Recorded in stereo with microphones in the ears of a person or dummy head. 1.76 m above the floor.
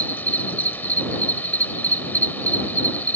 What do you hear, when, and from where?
0.0 s an insect: 10° left (ahead or behind)